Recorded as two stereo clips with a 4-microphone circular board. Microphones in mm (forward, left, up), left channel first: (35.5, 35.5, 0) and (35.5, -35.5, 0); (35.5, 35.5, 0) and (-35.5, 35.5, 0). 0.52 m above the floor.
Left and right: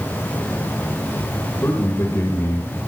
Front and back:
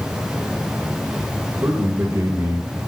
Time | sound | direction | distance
1.6 | a man speaking | 145° left | 2.5 m